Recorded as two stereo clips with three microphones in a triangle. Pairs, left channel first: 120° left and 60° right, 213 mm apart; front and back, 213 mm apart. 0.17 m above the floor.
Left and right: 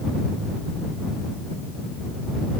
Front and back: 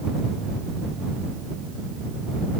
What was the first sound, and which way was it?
Only background noise.